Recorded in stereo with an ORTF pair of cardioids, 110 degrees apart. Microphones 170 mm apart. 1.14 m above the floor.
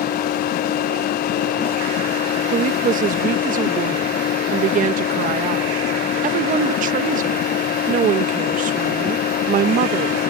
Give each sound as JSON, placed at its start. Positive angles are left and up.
{"t": 0.0, "sound": "a machine running", "azimuth_deg": 60}
{"t": 2.5, "sound": "a woman speaking", "azimuth_deg": -55}